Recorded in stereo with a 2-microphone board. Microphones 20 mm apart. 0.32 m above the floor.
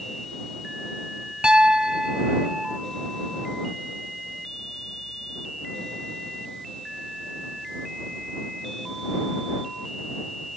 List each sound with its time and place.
1.4 s a piano: 50° right (ahead or behind)